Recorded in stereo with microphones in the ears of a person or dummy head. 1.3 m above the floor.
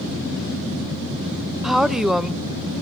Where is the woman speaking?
5° right (ahead or behind), 0.6 m.